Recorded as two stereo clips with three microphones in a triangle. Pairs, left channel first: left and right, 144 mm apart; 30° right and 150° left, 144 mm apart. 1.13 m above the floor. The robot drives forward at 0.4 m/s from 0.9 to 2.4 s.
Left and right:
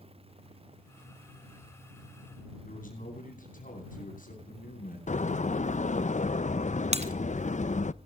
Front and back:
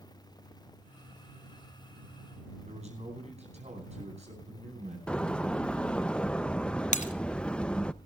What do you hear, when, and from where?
2.6 s a man speaking: 110° left, 10 m
5.1 s a door slam: 55° left, 0.6 m
6.9 s breaking glass: 50° right, 2 m